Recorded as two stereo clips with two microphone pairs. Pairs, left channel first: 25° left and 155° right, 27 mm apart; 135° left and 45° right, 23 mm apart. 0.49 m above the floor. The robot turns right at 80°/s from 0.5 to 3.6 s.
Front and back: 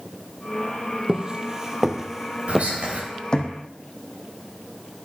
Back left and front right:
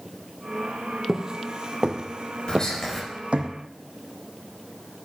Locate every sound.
1.1 s footsteps: 105° right, 1.1 m; by 3.5 s 25° right, 1.5 m
2.5 s whispering: straight behind, 2.5 m; by 3.0 s 140° right, 2.5 m